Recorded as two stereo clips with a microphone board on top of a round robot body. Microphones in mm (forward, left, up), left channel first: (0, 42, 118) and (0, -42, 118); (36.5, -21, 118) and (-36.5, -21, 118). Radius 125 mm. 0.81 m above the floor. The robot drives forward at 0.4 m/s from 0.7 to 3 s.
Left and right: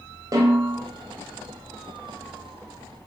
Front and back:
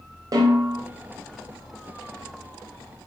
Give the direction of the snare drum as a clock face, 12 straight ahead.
5 o'clock.